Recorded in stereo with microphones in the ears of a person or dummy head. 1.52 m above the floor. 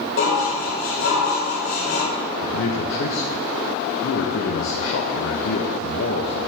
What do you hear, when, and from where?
0.2 s dishes clattering: 75° left (ahead or behind), 4 m
2.4 s a man speaking: 80° left, 1.4 m